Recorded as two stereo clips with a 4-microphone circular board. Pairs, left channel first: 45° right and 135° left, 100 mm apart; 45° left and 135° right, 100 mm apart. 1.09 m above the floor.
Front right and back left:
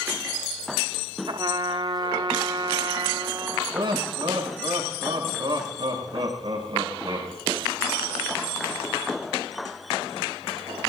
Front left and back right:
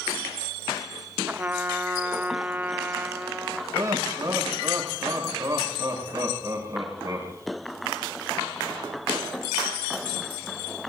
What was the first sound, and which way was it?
A trumpet, 160° left.